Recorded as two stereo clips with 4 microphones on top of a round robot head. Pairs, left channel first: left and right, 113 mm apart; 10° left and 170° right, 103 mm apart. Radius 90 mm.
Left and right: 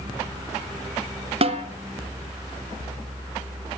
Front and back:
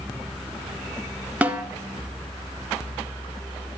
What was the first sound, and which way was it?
A snare drum, 95° right.